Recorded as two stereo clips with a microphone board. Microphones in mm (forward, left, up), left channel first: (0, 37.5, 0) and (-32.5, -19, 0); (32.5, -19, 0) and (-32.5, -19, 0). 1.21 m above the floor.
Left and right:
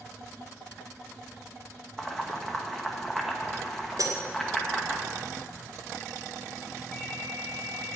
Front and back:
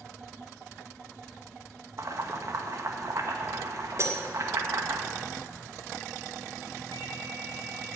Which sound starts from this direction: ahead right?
A ringtone, at 6.9 s.